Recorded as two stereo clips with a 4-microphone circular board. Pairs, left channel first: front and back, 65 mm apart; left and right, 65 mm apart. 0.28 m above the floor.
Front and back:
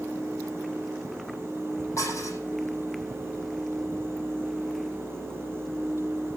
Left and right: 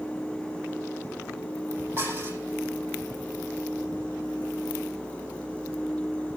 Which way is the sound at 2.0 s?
40° right.